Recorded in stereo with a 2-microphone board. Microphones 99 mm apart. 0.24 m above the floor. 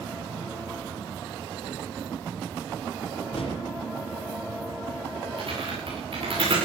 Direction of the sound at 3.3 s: 70° left (ahead or behind).